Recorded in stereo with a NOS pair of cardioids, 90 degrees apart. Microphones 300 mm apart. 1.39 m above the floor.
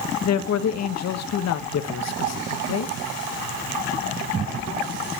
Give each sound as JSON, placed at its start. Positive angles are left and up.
{"t": 0.2, "sound": "a man speaking", "azimuth_deg": 60, "distance_m": 1.2}